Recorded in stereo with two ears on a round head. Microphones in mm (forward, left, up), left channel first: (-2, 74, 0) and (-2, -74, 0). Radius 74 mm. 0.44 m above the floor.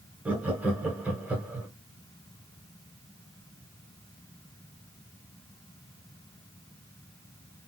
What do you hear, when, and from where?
0.2 s laughter: 10° right (ahead or behind), 0.9 m